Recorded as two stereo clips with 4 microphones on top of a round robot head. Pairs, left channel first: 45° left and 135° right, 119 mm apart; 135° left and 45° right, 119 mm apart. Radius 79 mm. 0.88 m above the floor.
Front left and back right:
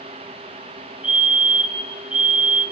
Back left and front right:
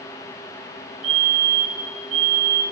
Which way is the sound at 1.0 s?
55° right.